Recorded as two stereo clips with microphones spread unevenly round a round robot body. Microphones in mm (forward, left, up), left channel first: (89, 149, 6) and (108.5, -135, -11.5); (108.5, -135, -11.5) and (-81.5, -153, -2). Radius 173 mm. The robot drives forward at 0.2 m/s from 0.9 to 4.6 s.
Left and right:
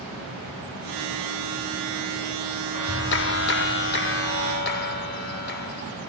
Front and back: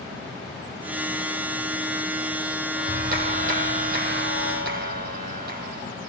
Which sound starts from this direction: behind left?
A clap, at 2.7 s.